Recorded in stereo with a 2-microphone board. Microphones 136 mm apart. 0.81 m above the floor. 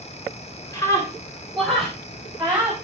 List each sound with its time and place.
0.7 s a scream: 25° left (ahead or behind), 3 m; by 2.7 s 15° right (ahead or behind), 4 m